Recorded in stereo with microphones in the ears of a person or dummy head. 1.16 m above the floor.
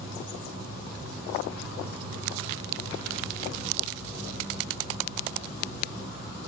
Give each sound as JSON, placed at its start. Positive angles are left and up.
{"t": 0.0, "sound": "an insect", "side_deg": -20, "distance_m": 5.5}